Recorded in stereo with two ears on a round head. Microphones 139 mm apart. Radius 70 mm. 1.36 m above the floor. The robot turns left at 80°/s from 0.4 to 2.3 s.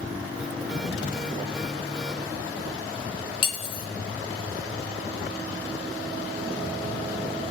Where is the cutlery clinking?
35° left (ahead or behind), 0.6 m.